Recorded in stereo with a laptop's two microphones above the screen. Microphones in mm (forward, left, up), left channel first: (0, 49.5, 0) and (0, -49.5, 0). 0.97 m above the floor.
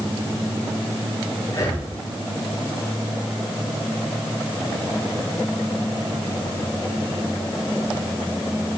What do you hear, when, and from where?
1.5 s breathing: 30° left (ahead or behind), 2.5 m